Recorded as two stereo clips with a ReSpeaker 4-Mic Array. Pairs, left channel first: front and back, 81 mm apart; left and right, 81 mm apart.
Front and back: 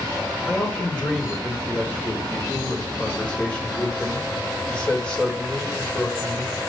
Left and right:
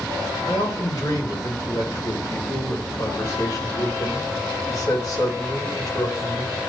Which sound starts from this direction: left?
A man speaking, at 0.5 s.